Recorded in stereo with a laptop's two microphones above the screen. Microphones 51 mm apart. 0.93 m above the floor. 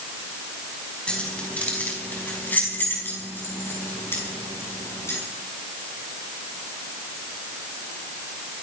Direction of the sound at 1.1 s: 20° left (ahead or behind).